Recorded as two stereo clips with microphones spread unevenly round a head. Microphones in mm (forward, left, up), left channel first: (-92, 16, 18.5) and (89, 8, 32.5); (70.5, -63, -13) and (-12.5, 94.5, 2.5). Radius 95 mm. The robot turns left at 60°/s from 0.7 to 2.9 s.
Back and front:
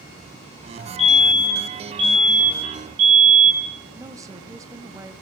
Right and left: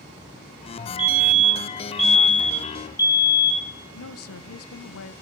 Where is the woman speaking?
80° right, 0.9 m.